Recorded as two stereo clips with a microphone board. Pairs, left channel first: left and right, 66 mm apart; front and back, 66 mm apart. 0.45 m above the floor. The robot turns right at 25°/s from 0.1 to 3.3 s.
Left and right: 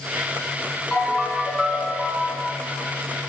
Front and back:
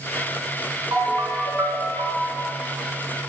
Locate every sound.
0.9 s a ringtone: 175° right, 3.5 m; by 2.5 s 135° right, 3.5 m